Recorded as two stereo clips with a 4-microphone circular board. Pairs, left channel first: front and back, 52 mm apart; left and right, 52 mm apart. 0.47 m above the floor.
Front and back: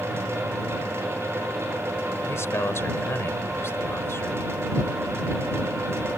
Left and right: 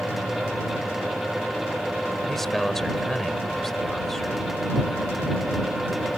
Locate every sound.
2.3 s a man speaking: 5° left